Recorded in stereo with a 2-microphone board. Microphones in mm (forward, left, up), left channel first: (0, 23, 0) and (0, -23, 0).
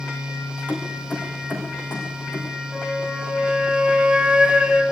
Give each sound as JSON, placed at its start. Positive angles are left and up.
{"t": 0.7, "sound": "keys jangling", "side_deg": 35, "distance_m": 6.5}
{"t": 2.7, "sound": "a flute", "side_deg": -15, "distance_m": 2.5}